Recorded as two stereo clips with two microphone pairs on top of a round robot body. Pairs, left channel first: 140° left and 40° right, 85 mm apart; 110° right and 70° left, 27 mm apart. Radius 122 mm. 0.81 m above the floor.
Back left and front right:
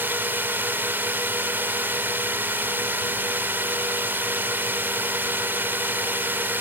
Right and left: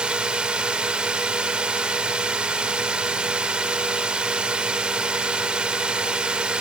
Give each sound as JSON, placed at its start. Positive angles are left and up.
{"t": 0.0, "sound": "a drone", "azimuth_deg": 25}